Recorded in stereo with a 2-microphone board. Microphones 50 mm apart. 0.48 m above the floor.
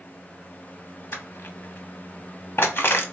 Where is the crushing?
60° left (ahead or behind), 0.8 m.